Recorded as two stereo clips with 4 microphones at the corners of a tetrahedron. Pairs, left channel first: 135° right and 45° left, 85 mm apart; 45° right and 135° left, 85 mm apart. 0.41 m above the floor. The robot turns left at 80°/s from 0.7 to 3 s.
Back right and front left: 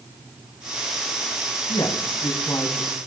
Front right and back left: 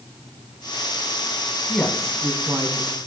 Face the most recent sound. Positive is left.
turn(degrees=140)